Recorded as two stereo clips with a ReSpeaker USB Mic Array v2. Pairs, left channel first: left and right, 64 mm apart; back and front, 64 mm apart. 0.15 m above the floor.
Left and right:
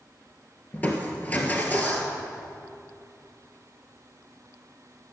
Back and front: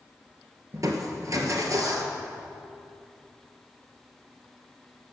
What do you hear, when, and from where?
0.7 s crushing: 25° left, 1.5 m